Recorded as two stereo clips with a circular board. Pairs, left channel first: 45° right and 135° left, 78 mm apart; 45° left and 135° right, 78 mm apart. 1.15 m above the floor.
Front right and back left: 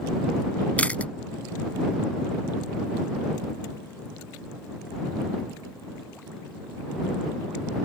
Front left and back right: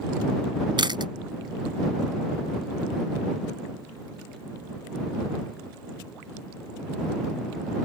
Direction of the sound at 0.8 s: 120° right.